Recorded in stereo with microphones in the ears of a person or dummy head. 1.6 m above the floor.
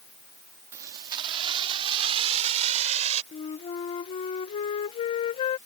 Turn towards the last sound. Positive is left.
turn(degrees=25)  # may be behind; listen again after turning